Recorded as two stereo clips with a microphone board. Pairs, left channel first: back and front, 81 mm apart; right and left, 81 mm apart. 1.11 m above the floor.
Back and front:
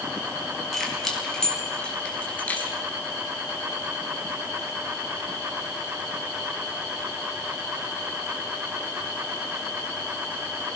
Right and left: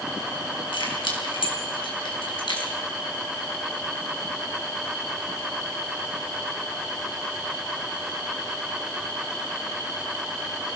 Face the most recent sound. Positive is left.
turn(degrees=-110)